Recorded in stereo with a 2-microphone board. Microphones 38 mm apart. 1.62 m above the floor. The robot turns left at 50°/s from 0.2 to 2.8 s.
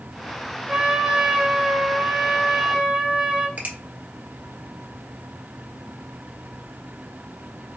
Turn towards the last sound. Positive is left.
turn(degrees=-40)  # may be behind; listen again after turning